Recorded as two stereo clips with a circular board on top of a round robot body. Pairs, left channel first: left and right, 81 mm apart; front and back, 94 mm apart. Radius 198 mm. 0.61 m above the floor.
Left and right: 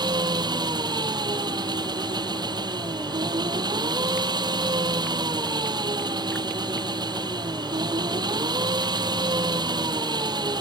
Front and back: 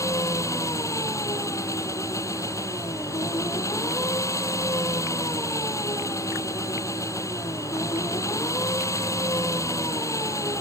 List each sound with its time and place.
0.0 s an engine running: 55° right